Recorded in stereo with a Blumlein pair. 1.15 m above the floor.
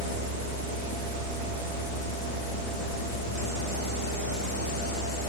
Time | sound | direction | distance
0.0 | a fan | 50° left | 2 m